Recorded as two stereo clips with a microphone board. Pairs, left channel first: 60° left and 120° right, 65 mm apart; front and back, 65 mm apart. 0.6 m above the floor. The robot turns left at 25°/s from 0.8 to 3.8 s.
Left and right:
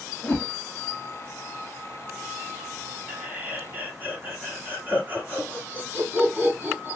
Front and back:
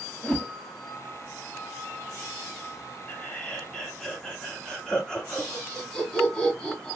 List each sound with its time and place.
0.2 s a whoosh: 55° left, 1.1 m
3.1 s laughter: 55° right, 1.6 m; by 7.0 s 75° right, 1.6 m